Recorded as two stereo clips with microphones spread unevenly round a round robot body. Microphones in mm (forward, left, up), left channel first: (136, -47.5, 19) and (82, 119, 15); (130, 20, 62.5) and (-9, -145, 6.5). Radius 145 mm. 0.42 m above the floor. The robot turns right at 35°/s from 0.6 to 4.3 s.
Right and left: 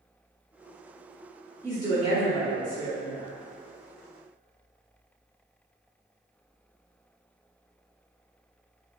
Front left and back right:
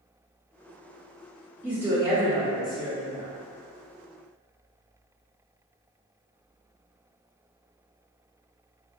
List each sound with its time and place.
1.6 s a woman speaking: 175° left, 1.4 m; by 3.3 s 125° right, 1.4 m